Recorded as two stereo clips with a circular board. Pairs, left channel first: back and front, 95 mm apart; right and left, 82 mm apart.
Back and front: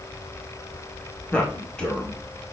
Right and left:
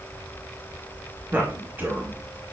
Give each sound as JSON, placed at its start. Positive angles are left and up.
{"t": 1.3, "sound": "a man speaking", "azimuth_deg": 115, "distance_m": 1.0}